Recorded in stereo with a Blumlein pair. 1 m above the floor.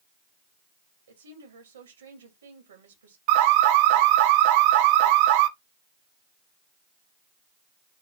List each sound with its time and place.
1.1 s a woman speaking: 70° right, 3.5 m
3.3 s an alarm: 45° right, 0.8 m